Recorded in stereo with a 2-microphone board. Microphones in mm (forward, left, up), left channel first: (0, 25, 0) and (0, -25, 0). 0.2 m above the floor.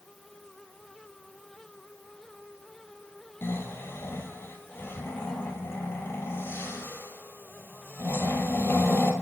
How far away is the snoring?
About 1.4 m.